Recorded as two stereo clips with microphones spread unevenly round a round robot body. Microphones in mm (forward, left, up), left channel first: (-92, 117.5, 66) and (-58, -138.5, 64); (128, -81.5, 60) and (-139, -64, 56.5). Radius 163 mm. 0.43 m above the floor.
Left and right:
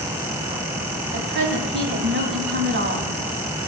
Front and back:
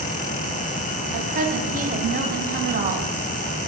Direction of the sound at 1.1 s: 125° right.